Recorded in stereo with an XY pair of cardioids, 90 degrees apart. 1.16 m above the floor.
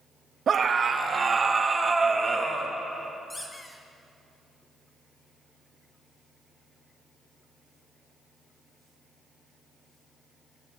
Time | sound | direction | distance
0.5 | a scream | 55° right | 1.6 m
3.3 | a squeak | 20° left | 3 m